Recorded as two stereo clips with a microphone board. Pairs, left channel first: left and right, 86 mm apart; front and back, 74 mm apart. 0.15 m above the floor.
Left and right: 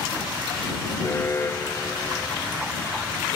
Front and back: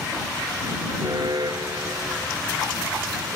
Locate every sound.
1.0 s an alarm: 155° left